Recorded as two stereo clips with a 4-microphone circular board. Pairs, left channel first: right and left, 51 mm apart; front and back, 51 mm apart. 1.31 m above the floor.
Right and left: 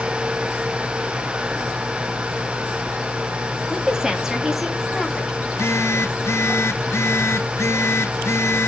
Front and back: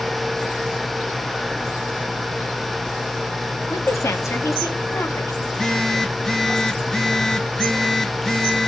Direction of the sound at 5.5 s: 75° right.